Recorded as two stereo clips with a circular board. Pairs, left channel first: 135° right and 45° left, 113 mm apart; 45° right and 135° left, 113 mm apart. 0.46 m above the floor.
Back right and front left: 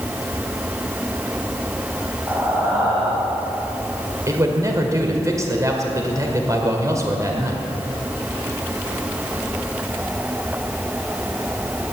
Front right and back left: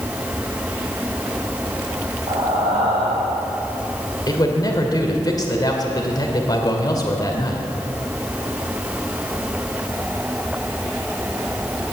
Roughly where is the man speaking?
Ahead.